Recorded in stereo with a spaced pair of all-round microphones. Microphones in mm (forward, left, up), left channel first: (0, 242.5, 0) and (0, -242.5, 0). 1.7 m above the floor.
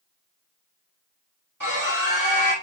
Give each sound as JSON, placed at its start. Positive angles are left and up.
{"t": 1.6, "sound": "a scream", "side_deg": -40, "distance_m": 4.0}